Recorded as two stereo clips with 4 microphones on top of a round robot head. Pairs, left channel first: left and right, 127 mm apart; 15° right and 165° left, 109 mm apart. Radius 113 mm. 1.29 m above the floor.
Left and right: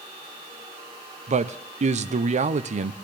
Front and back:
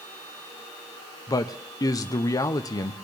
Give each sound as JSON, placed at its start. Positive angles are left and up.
{"t": 1.3, "sound": "a man speaking", "azimuth_deg": -70, "distance_m": 0.7}